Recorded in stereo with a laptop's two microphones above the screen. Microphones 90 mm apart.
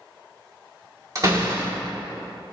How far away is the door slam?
About 1.3 m.